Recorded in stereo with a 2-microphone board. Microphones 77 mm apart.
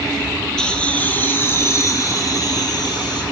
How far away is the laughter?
About 2.5 m.